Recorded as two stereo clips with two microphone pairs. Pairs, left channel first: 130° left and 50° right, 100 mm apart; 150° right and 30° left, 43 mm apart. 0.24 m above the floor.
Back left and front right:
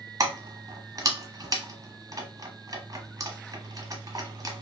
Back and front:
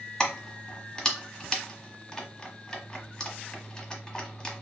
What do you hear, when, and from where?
0.2 s keys jangling: 85° right, 0.8 m